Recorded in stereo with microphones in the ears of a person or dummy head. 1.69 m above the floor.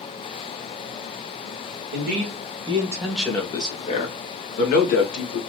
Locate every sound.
1.9 s a man speaking: 45° right (ahead or behind), 1.2 m; by 5.4 s 65° left (ahead or behind), 1.8 m